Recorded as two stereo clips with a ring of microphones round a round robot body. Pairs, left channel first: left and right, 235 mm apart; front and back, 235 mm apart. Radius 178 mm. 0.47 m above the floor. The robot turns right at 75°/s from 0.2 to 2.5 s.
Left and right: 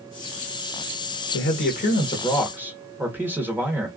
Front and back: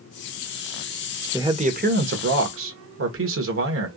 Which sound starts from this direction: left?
A man speaking, at 1.3 s.